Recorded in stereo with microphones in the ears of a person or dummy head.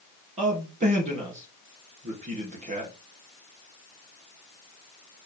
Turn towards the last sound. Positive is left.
turn(degrees=-35)  # may be behind; listen again after turning